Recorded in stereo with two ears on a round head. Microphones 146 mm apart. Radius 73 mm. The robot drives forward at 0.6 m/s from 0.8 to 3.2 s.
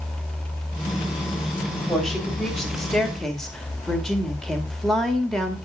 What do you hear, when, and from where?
1.7 s a woman speaking: centre (ahead or behind), 3 m; by 5.6 s 5° left (ahead or behind), 2 m